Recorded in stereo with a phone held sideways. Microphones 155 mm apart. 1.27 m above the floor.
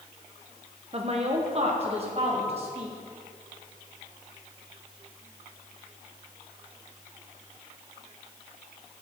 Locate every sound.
0.9 s a woman speaking: 40° right (ahead or behind), 0.8 m